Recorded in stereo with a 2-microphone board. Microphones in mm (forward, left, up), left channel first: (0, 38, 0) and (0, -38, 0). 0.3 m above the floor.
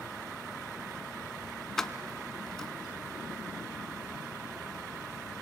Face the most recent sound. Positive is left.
turn(degrees=5)  # may be behind; listen again after turning